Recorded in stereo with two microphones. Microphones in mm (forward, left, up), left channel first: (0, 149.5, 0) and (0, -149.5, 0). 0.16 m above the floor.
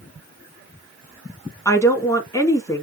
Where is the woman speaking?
10° left (ahead or behind), 1.5 m.